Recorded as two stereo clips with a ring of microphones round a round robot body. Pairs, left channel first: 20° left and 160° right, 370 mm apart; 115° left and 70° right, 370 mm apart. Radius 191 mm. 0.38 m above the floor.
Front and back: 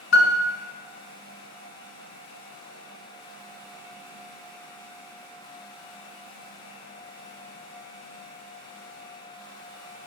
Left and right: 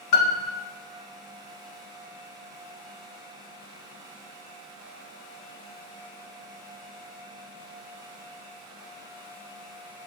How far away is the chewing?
I don't hear chewing.